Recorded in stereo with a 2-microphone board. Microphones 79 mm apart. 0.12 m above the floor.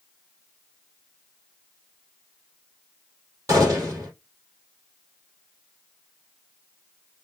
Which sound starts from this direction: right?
A gunshot, at 3.5 s.